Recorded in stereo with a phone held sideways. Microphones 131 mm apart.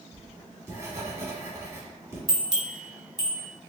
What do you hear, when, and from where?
0.1 s writing: 20° right (ahead or behind), 1.6 m
2.3 s a bell: 35° right (ahead or behind), 1.2 m